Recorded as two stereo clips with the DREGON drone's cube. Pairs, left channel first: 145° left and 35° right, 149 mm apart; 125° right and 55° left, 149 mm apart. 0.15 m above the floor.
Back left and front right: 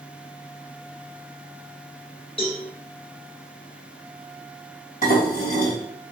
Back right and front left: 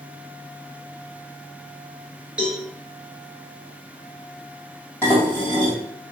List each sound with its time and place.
2.4 s a cowbell: 135° left, 1.4 m
5.0 s dishes clattering: 160° left, 2 m